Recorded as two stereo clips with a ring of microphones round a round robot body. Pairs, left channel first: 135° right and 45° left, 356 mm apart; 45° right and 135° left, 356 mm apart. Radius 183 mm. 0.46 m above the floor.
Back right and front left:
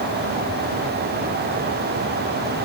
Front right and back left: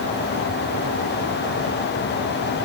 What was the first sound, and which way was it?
Only background noise.